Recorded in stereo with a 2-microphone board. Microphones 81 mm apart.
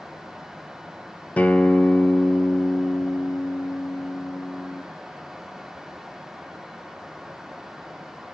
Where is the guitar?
20° left (ahead or behind), 0.8 m.